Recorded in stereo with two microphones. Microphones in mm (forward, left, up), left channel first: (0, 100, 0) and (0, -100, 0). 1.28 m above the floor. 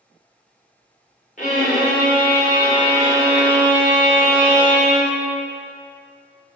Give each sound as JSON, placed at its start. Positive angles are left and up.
{"t": 1.4, "sound": "a violin", "side_deg": 40, "distance_m": 1.2}